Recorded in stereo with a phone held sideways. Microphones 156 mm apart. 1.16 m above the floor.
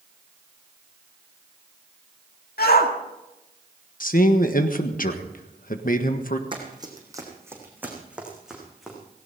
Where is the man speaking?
60° left (ahead or behind), 1.4 m.